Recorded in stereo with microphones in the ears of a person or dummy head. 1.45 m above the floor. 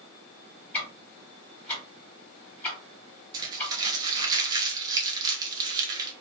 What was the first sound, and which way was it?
Ticking, 10° left (ahead or behind).